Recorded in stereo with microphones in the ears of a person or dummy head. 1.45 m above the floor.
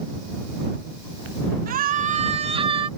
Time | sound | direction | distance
1.7 | a scream | 45° right (ahead or behind) | ?